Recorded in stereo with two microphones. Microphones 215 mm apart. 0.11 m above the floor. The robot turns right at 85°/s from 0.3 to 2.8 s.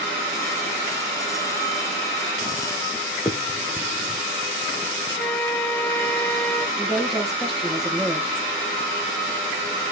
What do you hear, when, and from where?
3.2 s a finger snap: 15° left (ahead or behind), 1.0 m
5.2 s a flute: 10° left (ahead or behind), 0.6 m
6.8 s a woman speaking: centre (ahead or behind), 2 m